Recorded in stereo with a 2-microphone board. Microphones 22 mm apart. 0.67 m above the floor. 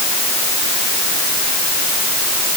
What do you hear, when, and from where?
Only background noise.